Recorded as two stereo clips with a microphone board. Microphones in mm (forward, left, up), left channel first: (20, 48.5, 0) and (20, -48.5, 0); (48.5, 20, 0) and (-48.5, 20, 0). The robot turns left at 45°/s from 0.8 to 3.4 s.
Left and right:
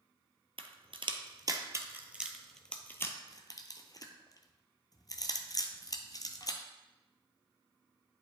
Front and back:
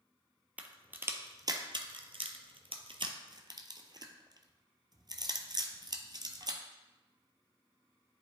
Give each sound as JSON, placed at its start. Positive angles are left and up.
{"t": 0.6, "sound": "a crack", "azimuth_deg": -105, "distance_m": 0.8}